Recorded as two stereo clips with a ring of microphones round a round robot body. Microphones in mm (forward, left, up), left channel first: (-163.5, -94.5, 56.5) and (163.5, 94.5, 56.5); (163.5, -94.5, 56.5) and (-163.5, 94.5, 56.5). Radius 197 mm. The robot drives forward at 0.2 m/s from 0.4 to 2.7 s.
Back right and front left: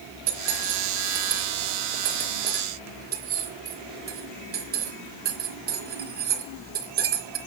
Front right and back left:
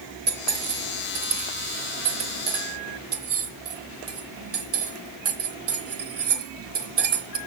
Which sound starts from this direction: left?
Cutlery clinking, at 0.3 s.